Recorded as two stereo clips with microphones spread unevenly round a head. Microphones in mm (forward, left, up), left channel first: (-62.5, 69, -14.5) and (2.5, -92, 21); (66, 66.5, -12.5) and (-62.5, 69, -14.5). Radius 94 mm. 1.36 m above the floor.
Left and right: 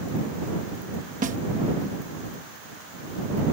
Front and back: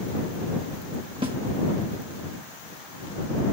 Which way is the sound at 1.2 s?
115° right.